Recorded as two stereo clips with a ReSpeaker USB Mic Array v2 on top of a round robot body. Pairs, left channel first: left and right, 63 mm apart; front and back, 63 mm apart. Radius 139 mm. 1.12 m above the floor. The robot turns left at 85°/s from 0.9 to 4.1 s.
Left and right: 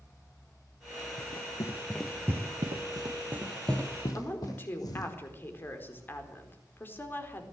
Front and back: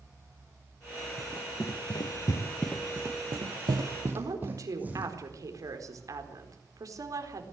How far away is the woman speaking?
About 4.5 m.